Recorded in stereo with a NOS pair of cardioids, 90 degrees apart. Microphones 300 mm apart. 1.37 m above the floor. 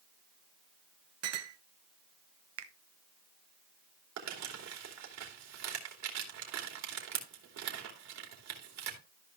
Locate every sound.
1.2 s a clink: 55° right, 1.1 m
2.6 s a finger snap: 50° right, 1.1 m
4.2 s crumpling: 65° right, 3 m